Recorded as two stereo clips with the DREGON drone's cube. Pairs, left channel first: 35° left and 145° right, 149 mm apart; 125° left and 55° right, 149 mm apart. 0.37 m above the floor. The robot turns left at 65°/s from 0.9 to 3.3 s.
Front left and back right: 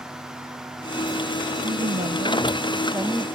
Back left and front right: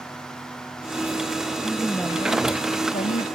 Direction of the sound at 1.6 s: 135° right.